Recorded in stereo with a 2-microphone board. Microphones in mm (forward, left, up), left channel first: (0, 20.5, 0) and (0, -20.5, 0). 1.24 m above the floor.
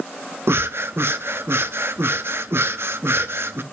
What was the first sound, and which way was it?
Breathing, 60° right (ahead or behind).